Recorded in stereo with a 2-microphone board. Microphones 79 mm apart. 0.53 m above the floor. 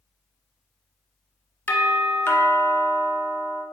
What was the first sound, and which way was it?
A doorbell, 25° left (ahead or behind).